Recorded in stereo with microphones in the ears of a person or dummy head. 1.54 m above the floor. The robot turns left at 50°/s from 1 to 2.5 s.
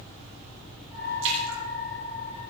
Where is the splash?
75° right (ahead or behind), 6.5 m.